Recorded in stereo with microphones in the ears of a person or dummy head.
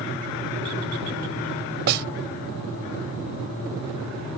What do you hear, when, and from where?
1.9 s a snare drum: 60° right (ahead or behind)